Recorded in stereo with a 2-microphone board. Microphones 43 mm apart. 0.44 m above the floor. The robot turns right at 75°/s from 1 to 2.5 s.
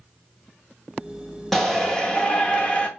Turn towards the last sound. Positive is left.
turn(degrees=25)  # may be behind; listen again after turning